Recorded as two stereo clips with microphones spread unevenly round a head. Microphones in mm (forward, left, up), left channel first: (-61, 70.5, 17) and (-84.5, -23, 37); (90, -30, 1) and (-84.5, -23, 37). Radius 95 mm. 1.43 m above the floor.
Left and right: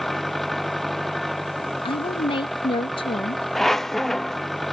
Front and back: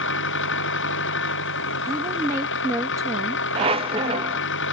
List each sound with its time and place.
0.0 s an engine running: 15° right
1.9 s a woman speaking: 100° left
3.5 s a squeak: straight behind